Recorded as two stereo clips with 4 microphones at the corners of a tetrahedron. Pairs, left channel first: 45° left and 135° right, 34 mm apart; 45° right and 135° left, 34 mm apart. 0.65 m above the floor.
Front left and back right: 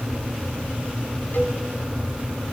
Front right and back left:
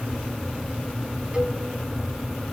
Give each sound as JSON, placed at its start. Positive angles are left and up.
{"t": 1.3, "sound": "a cowbell", "azimuth_deg": 70, "distance_m": 3.0}